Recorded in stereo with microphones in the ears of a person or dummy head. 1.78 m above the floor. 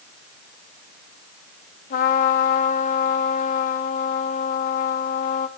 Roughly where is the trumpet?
Left.